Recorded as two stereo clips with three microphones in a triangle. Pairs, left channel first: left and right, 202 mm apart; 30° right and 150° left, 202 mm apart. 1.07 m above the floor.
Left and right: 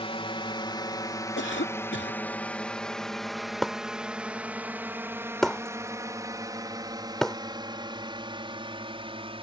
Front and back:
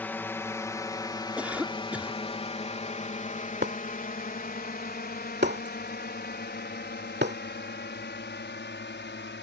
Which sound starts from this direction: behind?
Breaking glass, at 3.6 s.